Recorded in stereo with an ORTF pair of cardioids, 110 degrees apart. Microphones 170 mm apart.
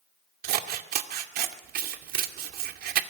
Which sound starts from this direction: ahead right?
Scissors, at 0.4 s.